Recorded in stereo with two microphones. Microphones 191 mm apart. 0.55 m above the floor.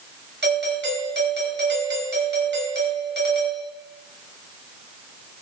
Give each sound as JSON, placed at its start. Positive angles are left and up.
{"t": 0.4, "sound": "a doorbell", "side_deg": -70, "distance_m": 4.5}